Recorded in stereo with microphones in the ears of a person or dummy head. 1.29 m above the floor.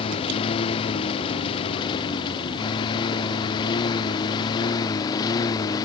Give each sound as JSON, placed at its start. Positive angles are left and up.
{"t": 0.0, "sound": "a lawn mower", "side_deg": 35}